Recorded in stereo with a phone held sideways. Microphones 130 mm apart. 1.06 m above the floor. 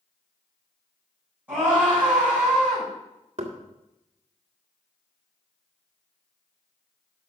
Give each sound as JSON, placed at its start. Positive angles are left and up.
{"t": 1.5, "sound": "a scream", "side_deg": -10, "distance_m": 6.5}
{"t": 3.4, "sound": "knocking", "side_deg": -50, "distance_m": 1.8}